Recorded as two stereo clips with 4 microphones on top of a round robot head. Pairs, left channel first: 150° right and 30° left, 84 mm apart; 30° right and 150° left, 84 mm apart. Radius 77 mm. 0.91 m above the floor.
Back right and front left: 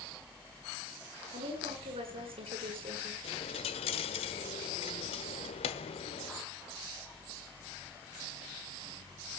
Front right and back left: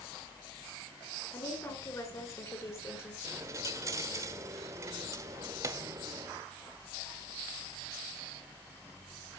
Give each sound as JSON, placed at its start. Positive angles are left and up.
{"t": 1.3, "sound": "a woman speaking", "azimuth_deg": 25, "distance_m": 9.0}
{"t": 3.2, "sound": "a dropped coin", "azimuth_deg": -155, "distance_m": 1.2}